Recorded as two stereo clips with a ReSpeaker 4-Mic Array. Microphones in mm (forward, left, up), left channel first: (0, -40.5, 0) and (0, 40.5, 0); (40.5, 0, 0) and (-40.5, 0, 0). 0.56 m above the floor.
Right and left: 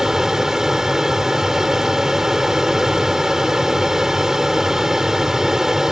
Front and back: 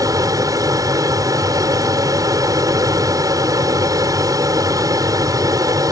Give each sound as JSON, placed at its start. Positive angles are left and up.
{"t": 0.0, "sound": "an aircraft", "azimuth_deg": 170}